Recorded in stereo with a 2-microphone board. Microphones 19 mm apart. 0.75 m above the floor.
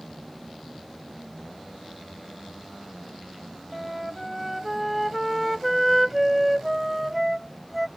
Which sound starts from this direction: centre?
A flute, at 3.7 s.